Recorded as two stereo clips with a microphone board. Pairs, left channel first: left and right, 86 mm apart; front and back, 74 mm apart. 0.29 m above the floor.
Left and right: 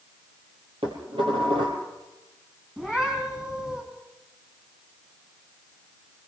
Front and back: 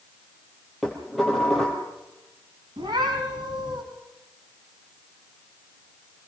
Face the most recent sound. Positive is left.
turn(degrees=-165)